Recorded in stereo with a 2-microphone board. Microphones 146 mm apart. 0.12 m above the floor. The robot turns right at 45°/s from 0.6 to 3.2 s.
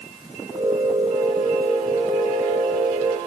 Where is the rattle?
No rattle in this recording.